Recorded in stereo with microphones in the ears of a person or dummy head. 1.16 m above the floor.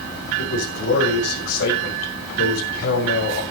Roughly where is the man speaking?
Left.